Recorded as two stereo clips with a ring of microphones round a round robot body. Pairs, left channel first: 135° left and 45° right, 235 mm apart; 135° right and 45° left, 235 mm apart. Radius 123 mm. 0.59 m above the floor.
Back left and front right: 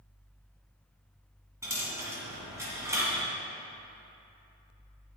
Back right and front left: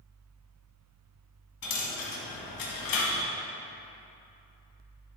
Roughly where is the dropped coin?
Behind right.